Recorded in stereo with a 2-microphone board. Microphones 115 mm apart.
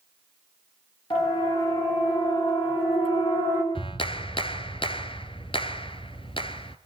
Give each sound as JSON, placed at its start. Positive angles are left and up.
{"t": 1.1, "sound": "a siren", "side_deg": 45, "distance_m": 10.0}
{"t": 3.8, "sound": "a clap", "side_deg": 50, "distance_m": 1.5}